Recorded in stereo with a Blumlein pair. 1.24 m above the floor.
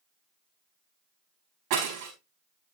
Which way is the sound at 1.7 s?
45° right.